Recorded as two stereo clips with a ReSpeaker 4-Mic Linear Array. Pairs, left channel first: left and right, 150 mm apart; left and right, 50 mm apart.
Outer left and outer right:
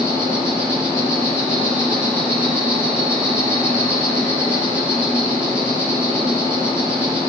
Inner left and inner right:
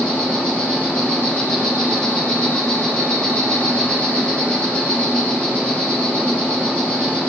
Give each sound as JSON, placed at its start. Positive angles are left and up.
{"t": 0.0, "sound": "an insect", "side_deg": 15, "distance_m": 4.5}